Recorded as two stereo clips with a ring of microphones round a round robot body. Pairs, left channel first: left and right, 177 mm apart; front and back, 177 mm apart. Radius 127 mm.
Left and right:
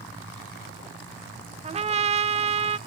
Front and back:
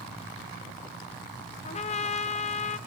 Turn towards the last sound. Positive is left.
turn(degrees=-45)